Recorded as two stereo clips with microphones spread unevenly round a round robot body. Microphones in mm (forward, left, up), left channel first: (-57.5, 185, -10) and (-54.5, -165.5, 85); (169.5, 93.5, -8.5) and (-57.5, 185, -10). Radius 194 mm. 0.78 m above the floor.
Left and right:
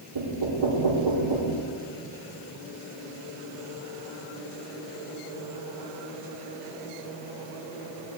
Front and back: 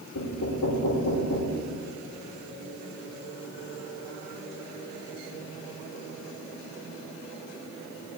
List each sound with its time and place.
0.1 s knocking: 60° right, 2 m